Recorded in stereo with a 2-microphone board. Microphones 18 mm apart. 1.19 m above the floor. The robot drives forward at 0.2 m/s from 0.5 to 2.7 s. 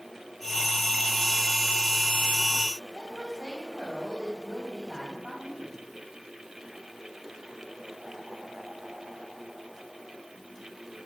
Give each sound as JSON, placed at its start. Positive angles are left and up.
{"t": 2.9, "sound": "a woman speaking", "side_deg": -35, "distance_m": 5.5}